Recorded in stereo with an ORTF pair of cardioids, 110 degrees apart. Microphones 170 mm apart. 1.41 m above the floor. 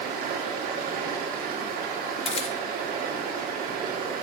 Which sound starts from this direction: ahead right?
Running water, at 0.0 s.